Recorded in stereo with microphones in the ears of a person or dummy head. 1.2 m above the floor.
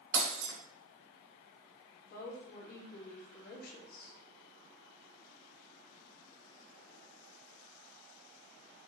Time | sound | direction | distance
0.1 | breaking glass | 65° right (ahead or behind) | 3 m
2.0 | a woman speaking | 60° left (ahead or behind) | 2.5 m